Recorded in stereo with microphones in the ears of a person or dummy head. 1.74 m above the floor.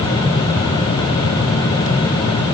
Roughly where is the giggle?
I don't hear a giggle.